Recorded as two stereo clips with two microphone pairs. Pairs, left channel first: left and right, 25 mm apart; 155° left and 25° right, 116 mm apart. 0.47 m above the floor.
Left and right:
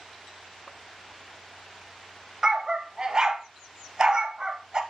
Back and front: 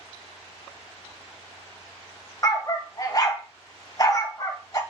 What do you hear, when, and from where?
2.4 s a dog barking: 150° right, 0.6 m